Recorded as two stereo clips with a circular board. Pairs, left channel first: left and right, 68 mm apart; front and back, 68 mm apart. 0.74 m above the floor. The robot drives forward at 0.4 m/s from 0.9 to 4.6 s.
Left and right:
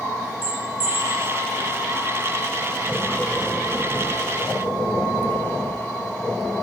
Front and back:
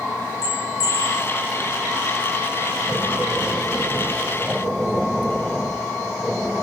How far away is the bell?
About 2 m.